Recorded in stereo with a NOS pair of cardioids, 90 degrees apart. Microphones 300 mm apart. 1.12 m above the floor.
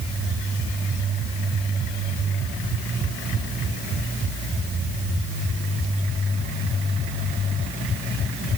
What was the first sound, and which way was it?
Only background noise.